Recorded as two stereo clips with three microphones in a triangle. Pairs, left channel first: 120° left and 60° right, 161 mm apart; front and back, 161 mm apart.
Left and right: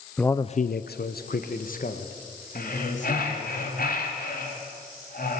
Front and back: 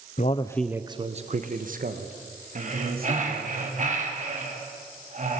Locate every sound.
0.2 s a man speaking: 35° left, 0.7 m; by 3.5 s 160° left, 3.5 m
2.5 s breathing: 145° left, 3.5 m